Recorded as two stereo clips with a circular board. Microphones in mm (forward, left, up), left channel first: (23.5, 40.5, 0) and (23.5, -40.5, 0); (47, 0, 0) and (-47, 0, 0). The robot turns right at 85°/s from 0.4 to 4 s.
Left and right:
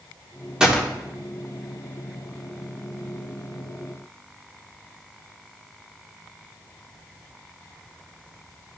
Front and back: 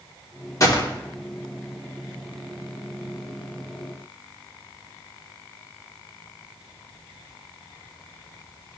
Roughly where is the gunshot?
Ahead.